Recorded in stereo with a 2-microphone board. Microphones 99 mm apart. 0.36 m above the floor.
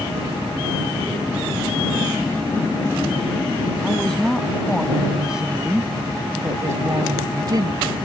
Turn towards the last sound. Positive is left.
turn(degrees=-50)  # may be behind; listen again after turning